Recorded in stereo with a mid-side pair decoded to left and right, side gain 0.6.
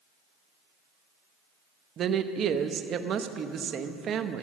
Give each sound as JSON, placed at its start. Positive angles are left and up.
{"t": 2.0, "sound": "a woman speaking", "azimuth_deg": -50, "distance_m": 0.9}